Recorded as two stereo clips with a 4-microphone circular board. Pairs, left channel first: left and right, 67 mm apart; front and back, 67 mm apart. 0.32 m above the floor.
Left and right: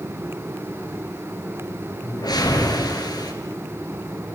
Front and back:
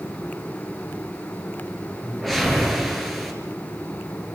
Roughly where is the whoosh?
Left.